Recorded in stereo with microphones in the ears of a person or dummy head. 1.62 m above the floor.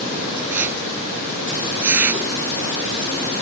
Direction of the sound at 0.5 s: 10° right (ahead or behind).